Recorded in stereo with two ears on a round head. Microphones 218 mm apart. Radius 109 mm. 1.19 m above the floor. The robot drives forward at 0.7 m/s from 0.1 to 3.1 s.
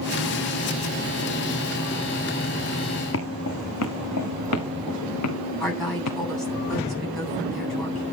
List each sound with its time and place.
3.1 s footsteps: 55° left (ahead or behind), 3 m; by 6.2 s 70° left (ahead or behind), 6.5 m
5.6 s a woman speaking: centre (ahead or behind), 9.5 m